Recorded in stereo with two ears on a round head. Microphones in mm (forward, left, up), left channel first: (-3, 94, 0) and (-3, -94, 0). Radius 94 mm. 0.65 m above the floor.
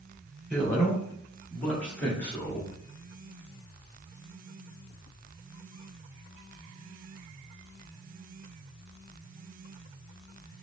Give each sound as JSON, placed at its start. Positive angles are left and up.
{"t": 0.5, "sound": "a man speaking", "side_deg": 5, "distance_m": 2.0}